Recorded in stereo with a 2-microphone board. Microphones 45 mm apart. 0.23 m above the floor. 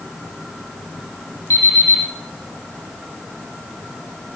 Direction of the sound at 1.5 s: 80° left.